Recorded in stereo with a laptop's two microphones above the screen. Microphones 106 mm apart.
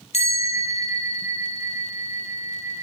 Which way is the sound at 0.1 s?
70° left (ahead or behind).